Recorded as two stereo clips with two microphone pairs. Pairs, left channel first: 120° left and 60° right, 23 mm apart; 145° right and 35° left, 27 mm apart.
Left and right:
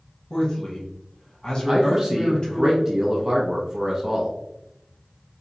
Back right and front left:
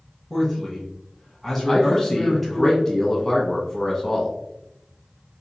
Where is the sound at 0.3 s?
125° left, 1.4 m.